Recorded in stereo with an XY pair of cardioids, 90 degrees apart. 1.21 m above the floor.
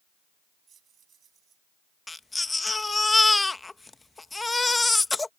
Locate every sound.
0.7 s keys jangling: 60° right
2.1 s a baby crying: 20° left